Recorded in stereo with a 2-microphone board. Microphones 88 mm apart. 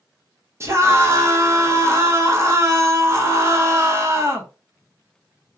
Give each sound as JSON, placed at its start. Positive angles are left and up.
{"t": 0.6, "sound": "a scream", "side_deg": -35, "distance_m": 0.7}